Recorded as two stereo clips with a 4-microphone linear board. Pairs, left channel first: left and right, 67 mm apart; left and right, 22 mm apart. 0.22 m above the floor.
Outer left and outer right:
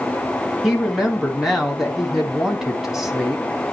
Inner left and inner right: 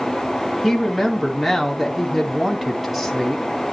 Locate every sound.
0.6 s a woman speaking: 5° right (ahead or behind), 1.5 m